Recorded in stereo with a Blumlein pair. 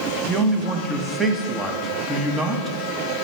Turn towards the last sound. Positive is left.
turn(degrees=-10)